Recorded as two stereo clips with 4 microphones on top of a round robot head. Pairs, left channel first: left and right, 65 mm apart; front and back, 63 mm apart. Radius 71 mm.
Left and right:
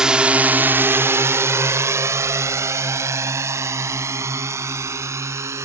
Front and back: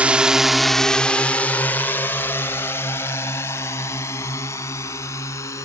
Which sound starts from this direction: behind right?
A drone, at 0.0 s.